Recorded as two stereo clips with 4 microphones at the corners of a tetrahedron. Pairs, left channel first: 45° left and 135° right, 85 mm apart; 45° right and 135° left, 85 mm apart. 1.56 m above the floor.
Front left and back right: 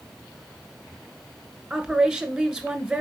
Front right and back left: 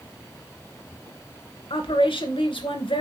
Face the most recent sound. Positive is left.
turn(degrees=-50)